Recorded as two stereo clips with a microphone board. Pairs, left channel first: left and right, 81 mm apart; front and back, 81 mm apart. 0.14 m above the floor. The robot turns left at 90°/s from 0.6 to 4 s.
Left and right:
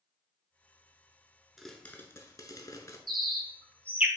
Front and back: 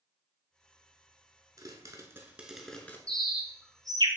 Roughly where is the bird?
Right.